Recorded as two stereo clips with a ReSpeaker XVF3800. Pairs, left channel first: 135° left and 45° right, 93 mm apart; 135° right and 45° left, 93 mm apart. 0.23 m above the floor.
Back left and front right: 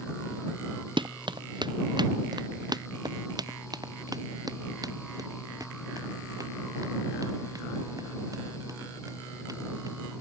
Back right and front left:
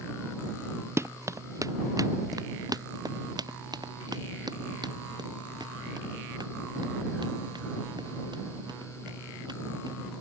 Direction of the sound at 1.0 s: 15° right.